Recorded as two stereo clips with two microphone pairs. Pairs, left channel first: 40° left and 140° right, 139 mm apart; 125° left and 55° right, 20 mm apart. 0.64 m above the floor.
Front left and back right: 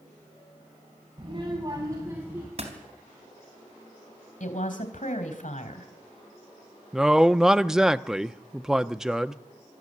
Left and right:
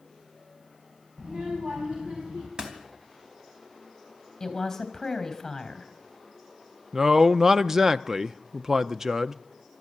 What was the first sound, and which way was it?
A child speaking, 90° right.